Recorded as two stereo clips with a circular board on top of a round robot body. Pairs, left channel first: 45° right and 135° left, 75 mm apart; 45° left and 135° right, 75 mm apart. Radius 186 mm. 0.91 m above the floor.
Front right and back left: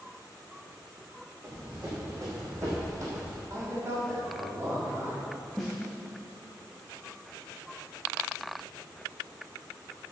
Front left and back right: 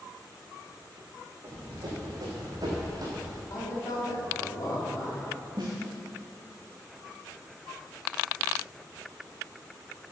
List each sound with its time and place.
1.4 s running footsteps: 170° right, 4 m; by 3.4 s 175° right, 2 m
3.5 s a man speaking: 80° left, 3.5 m
5.6 s a snare drum: 130° right, 0.5 m